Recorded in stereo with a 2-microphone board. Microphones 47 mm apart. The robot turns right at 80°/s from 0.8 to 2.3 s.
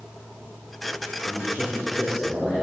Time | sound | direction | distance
1.2 | a man speaking | 115° left | 6.5 m